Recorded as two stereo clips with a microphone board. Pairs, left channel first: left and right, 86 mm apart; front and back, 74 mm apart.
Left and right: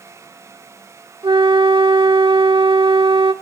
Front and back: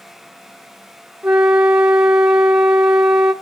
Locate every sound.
1.2 s a flute: 105° right, 1.8 m